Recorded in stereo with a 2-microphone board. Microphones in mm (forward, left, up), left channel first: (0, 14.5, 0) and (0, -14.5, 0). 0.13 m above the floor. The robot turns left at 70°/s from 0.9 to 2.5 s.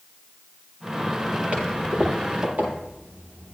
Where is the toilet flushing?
45° right (ahead or behind), 6.5 m; by 3.5 s 65° right (ahead or behind), 6.5 m.